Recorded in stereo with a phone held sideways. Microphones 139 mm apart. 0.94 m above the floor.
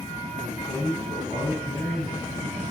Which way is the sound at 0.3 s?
15° right (ahead or behind).